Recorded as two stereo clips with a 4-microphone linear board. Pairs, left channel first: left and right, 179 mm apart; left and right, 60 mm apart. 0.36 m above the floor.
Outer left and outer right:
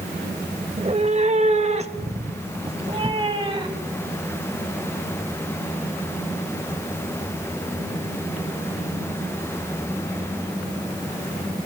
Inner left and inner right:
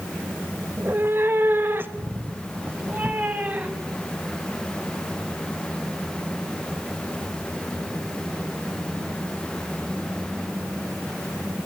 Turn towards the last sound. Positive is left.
turn(degrees=-25)  # may be behind; listen again after turning